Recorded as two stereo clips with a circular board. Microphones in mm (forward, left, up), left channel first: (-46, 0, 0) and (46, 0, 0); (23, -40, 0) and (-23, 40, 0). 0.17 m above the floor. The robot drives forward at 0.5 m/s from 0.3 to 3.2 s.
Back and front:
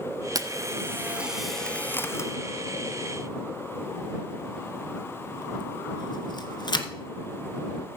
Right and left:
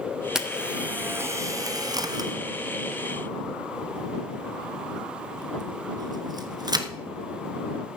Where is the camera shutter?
40° left, 0.8 m; by 6.9 s 155° left, 1.1 m.